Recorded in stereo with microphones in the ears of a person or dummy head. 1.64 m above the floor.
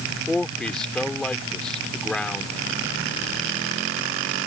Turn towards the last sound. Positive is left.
turn(degrees=0)  # may be behind; listen again after turning